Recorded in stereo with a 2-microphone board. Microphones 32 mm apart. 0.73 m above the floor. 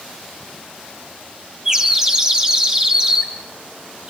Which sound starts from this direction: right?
A bird, at 1.6 s.